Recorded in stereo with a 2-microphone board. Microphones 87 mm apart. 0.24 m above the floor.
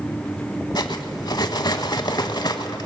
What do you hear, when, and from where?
0.8 s cutlery clinking: 50° left (ahead or behind), 0.8 m